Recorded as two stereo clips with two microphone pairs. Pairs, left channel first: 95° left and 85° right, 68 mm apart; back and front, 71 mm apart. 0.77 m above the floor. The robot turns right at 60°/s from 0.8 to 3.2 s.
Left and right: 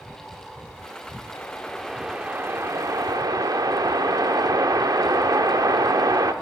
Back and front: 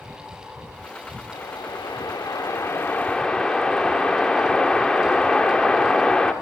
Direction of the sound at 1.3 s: 150° left.